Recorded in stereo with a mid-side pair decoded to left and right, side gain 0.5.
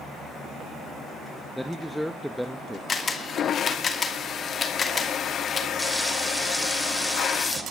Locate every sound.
1.6 s a man speaking: straight ahead, 0.9 m
2.9 s a camera shutter: 40° left, 2.5 m
5.8 s frying: straight ahead, 2.5 m